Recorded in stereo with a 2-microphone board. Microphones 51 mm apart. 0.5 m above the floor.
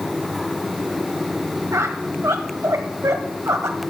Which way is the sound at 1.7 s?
80° right.